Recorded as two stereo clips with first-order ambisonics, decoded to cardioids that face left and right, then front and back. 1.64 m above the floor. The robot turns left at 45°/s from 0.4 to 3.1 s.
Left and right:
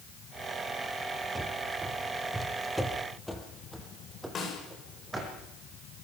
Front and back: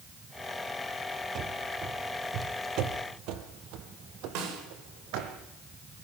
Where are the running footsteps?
165° right, 2.0 m.